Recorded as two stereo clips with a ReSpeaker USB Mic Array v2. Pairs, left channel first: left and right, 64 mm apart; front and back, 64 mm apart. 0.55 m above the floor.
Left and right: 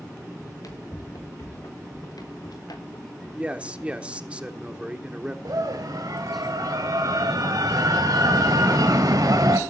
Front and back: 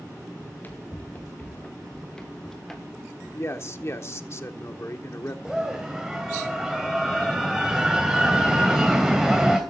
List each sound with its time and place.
0.4 s running footsteps: 60° left, 3.5 m; by 4.0 s 95° left, 4 m
3.3 s a man speaking: 25° right, 1.4 m
5.5 s a scream: 95° right, 2.5 m